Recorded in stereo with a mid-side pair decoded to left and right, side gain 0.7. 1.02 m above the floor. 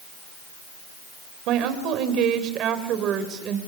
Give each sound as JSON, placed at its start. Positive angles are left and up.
{"t": 1.5, "sound": "a woman speaking", "azimuth_deg": -60, "distance_m": 4.0}